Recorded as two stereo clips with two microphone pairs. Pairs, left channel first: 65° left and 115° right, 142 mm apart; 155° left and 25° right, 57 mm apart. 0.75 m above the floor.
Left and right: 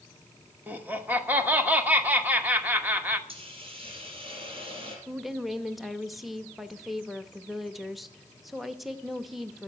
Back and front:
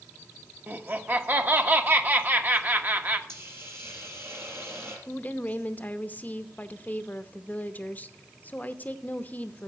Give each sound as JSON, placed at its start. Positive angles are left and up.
{"t": 0.7, "sound": "laughter", "azimuth_deg": -45, "distance_m": 1.1}
{"t": 3.3, "sound": "a hiss", "azimuth_deg": -65, "distance_m": 3.5}
{"t": 5.1, "sound": "a woman speaking", "azimuth_deg": 155, "distance_m": 0.7}